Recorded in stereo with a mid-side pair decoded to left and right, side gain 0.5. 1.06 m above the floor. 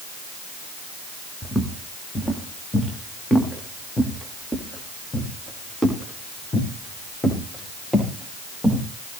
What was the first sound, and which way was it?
Footsteps, straight ahead.